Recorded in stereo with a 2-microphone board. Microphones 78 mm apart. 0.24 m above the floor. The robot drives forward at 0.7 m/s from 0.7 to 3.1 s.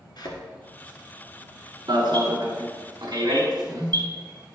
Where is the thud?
60° left (ahead or behind), 1.5 m.